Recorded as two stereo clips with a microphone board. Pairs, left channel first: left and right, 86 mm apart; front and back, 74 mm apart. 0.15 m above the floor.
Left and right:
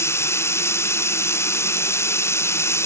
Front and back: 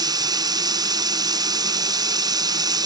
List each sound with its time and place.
0.0 s running water: 150° left